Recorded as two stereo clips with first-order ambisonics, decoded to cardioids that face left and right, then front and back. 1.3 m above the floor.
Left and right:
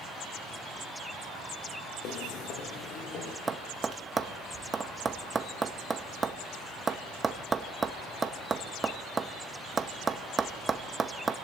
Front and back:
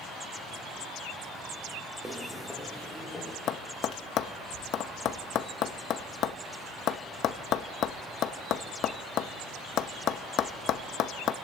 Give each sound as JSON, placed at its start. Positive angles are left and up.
{"t": 2.0, "sound": "footsteps", "azimuth_deg": 105, "distance_m": 1.9}
{"t": 3.5, "sound": "tapping", "azimuth_deg": -20, "distance_m": 0.7}